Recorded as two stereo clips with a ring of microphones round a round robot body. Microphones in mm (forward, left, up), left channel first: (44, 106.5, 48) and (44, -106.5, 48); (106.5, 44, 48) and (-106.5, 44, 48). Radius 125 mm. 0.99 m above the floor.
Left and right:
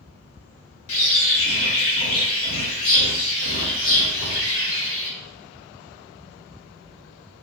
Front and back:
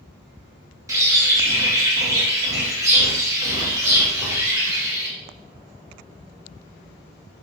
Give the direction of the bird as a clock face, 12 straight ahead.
9 o'clock.